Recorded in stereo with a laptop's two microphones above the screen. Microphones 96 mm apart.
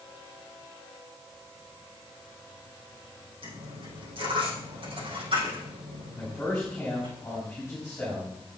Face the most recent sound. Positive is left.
turn(degrees=20)  # may be behind; listen again after turning